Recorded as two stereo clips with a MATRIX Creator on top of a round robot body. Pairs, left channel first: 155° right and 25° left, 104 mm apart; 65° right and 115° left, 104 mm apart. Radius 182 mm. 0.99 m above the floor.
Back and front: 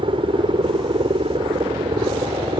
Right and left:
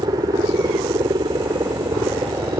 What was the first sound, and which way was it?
A helicopter, 60° left.